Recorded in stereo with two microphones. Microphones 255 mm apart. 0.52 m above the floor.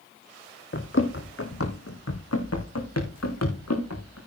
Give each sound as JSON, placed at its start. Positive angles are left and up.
{"t": 0.7, "sound": "running footsteps", "side_deg": 45, "distance_m": 1.8}